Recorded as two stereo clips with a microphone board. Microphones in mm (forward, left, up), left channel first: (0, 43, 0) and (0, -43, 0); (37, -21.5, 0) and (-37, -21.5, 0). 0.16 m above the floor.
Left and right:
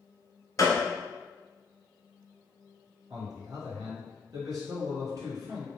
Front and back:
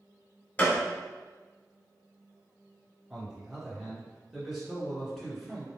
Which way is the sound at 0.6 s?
60° left.